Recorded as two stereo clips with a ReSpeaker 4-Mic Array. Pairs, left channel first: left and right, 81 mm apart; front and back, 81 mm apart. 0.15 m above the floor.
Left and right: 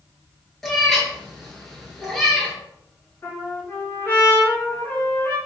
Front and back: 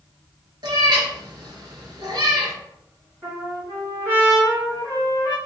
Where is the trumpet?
135° left, 1.8 m.